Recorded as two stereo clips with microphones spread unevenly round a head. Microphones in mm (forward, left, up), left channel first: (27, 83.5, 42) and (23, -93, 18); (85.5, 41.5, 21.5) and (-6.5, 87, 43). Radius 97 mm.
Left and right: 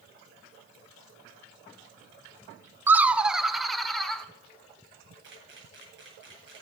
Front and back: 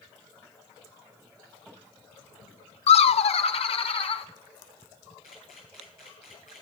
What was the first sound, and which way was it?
Laughter, 15° right.